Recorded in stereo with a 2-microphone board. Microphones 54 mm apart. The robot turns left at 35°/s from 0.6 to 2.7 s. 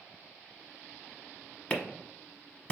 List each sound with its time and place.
1.7 s a clap: 25° left (ahead or behind), 0.8 m; by 2.7 s 20° left (ahead or behind), 0.8 m